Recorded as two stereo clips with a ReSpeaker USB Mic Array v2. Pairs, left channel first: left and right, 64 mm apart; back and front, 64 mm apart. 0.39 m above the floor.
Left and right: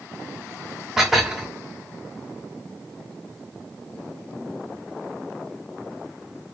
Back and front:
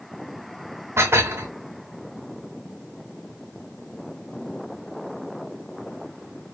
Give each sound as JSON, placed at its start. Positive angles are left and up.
{"t": 1.0, "sound": "dishes clattering", "azimuth_deg": -10, "distance_m": 0.7}